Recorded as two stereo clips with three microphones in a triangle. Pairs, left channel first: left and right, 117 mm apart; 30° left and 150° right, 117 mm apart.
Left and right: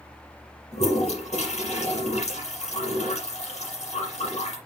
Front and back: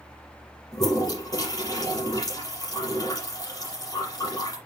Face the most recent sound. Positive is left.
turn(degrees=85)